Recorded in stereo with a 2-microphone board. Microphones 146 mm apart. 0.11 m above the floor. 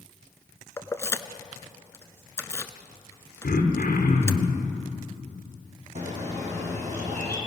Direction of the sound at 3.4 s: 70° left (ahead or behind).